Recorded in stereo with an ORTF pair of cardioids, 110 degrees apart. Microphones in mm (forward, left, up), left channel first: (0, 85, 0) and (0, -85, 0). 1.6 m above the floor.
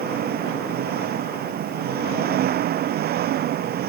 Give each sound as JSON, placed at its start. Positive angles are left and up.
{"t": 0.0, "sound": "an engine running", "azimuth_deg": -65}